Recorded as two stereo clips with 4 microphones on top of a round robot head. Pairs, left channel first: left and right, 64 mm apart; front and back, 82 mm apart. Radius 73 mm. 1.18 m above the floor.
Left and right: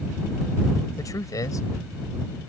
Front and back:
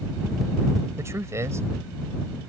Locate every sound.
1.0 s a man speaking: 120° left